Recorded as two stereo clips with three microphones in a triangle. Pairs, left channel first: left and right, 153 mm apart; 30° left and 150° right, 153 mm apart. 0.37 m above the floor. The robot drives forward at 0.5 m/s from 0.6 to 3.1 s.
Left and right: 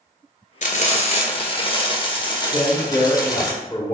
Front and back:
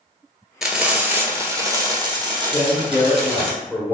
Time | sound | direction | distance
0.6 | frying | 120° left | 1.0 m
2.5 | a man speaking | 80° left | 0.9 m